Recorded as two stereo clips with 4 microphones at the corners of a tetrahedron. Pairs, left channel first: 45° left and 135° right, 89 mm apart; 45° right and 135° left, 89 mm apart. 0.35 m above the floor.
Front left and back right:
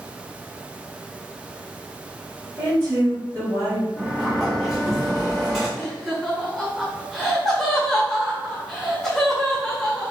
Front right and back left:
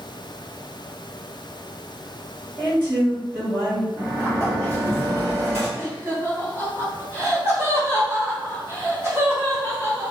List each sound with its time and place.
2.6 s a woman speaking: 160° right, 1.6 m
4.0 s a sliding door: 135° left, 1.5 m
5.8 s laughter: 130° left, 1.3 m